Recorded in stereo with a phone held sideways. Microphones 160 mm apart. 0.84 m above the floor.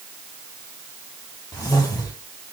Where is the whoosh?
20° left (ahead or behind), 2.5 m.